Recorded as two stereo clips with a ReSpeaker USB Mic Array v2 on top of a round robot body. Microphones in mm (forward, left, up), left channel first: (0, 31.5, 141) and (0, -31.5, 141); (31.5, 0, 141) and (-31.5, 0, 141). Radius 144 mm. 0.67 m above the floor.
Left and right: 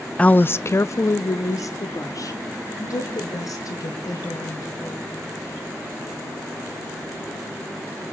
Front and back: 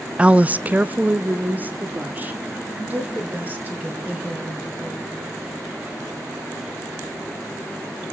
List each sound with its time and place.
0.2 s a woman speaking: 135° left, 0.5 m; by 5.2 s 115° left, 4.5 m